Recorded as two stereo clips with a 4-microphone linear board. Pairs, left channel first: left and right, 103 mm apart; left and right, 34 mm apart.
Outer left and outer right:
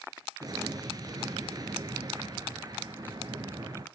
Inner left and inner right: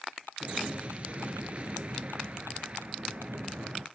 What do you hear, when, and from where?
0.4 s an explosion: 40° right (ahead or behind), 1.0 m